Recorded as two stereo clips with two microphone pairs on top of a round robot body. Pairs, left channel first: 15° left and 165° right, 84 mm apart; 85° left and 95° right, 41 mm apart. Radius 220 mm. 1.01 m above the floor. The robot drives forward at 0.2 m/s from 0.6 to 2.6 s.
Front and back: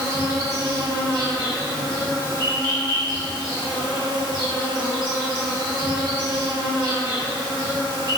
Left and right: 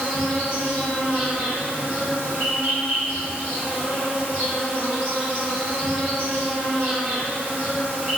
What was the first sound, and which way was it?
An insect, 150° right.